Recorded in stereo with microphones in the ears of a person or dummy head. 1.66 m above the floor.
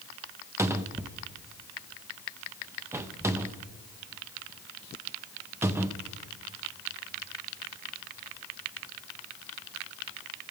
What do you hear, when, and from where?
0.6 s a cupboard door: 15° right (ahead or behind), 0.6 m